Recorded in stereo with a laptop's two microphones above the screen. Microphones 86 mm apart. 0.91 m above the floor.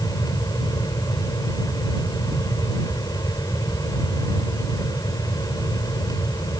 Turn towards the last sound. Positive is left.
turn(degrees=50)  # may be behind; listen again after turning